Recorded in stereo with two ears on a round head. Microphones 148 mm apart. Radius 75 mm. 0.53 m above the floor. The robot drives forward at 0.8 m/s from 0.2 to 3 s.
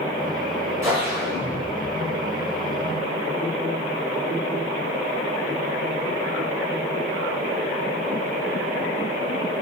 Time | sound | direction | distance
0.8 | a whoosh | 20° right (ahead or behind) | 3.5 m